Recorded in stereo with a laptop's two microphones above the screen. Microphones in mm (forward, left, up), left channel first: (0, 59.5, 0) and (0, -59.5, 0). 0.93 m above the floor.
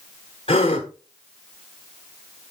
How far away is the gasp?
About 1.5 m.